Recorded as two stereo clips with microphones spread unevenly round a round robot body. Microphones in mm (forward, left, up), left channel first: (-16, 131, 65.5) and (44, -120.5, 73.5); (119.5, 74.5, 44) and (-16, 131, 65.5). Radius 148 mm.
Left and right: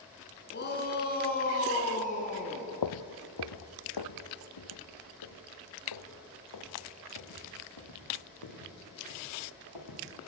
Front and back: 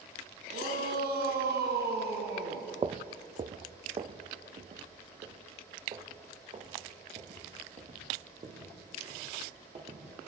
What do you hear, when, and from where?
0.5 s a shout: 155° left, 4 m; by 2.7 s 170° left, 3.5 m
2.8 s footsteps: 105° left, 0.9 m; by 10.0 s 110° left, 7.5 m